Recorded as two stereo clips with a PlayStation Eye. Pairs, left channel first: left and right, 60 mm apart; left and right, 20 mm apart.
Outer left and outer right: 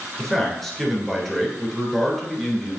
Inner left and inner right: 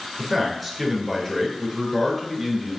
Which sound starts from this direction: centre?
A man speaking, at 0.2 s.